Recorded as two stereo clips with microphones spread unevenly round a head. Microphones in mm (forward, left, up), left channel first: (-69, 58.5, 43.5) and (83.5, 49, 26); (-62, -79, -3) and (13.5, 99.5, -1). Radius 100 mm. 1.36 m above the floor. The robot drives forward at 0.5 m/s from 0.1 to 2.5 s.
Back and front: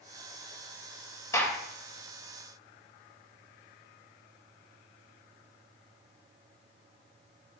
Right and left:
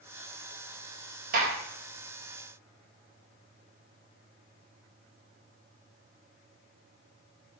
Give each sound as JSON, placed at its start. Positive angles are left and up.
{"t": 1.3, "sound": "a gunshot", "azimuth_deg": 110, "distance_m": 2.5}